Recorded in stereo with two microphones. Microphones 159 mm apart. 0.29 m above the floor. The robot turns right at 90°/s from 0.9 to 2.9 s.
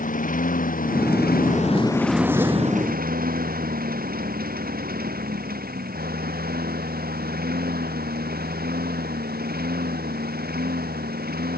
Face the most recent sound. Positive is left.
turn(degrees=-90)